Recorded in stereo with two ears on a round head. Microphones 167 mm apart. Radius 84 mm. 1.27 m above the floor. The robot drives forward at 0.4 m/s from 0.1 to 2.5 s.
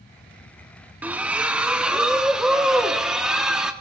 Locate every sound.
1.0 s a splash: 10° right (ahead or behind), 0.6 m; by 3.7 s 5° right (ahead or behind), 1.1 m